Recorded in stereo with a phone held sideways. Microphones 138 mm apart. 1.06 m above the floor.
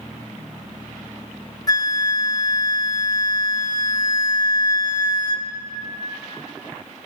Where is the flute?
30° left (ahead or behind), 0.7 m.